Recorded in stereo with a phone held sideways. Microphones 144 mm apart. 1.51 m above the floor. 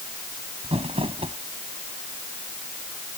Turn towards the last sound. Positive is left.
turn(degrees=-40)  # may be behind; listen again after turning